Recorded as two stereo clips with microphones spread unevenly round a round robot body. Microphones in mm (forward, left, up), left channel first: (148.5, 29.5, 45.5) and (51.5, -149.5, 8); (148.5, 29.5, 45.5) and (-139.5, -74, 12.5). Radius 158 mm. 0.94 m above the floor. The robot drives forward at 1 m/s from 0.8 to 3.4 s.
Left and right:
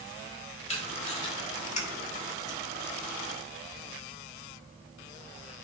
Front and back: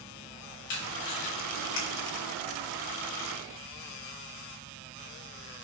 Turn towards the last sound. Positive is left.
turn(degrees=10)